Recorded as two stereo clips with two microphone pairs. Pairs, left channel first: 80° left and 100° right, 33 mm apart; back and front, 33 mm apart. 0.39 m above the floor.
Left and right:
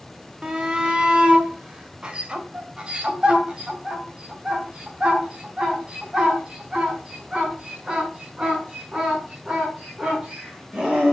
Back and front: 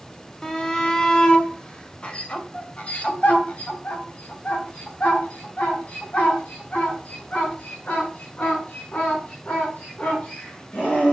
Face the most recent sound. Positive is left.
turn(degrees=-160)